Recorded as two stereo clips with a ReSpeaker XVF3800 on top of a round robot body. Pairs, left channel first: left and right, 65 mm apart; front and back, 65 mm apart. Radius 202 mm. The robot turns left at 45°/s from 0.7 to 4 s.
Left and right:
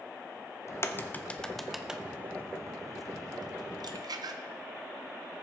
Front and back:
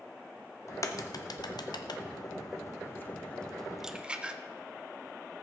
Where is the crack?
45° left, 0.8 m; by 4.4 s 105° right, 0.8 m.